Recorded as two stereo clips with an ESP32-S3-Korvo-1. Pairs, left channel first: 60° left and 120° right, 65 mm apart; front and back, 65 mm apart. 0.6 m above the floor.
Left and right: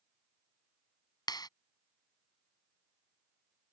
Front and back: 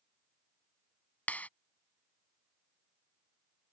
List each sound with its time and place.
1.3 s a clap: 70° left